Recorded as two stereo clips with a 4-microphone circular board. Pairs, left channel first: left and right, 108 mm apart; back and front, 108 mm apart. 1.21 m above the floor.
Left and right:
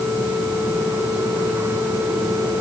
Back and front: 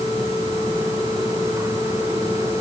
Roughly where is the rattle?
No rattle in this recording.